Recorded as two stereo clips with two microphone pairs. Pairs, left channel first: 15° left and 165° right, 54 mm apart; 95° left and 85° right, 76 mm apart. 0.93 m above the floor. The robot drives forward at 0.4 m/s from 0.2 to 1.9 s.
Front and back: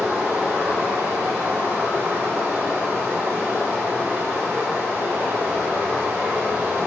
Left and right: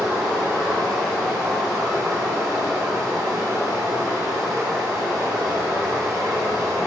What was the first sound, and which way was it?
Running water, 100° right.